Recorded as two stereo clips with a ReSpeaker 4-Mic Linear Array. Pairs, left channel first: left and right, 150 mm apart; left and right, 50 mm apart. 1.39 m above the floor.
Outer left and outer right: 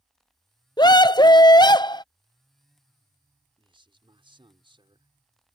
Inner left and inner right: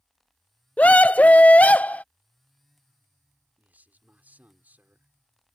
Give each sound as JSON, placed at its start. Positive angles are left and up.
{"t": 0.8, "sound": "a scream", "side_deg": 30}
{"t": 3.6, "sound": "a man speaking", "side_deg": -35}